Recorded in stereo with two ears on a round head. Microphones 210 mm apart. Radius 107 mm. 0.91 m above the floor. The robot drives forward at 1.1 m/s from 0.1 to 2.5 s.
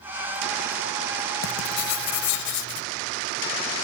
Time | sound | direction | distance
1.4 | writing | 60° left (ahead or behind) | ?